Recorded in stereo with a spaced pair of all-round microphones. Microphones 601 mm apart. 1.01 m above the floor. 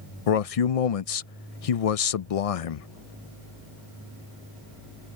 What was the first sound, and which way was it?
A man speaking, 75° left (ahead or behind).